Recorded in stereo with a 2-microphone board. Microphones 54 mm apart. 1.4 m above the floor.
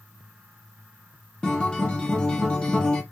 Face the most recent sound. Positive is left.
turn(degrees=15)  # may be behind; listen again after turning